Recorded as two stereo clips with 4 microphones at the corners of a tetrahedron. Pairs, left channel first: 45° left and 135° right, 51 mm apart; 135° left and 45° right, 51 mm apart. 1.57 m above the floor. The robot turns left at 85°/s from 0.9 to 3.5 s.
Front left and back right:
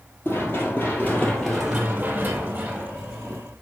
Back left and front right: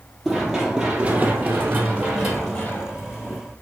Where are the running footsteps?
40° left, 2.5 m; by 3.4 s 115° left, 2.5 m.